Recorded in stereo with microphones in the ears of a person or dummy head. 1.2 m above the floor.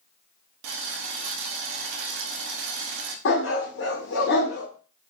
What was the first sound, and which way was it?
Boiling, 65° right (ahead or behind).